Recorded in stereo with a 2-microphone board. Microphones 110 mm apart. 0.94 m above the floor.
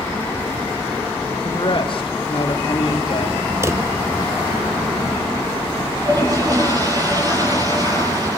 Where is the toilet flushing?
35° right (ahead or behind), 9.5 m.